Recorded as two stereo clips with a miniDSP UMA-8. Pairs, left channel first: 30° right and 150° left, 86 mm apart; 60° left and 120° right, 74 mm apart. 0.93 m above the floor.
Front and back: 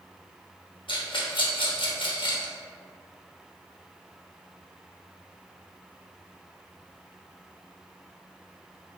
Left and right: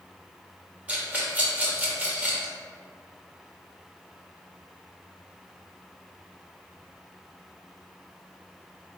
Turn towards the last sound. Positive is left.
turn(degrees=-50)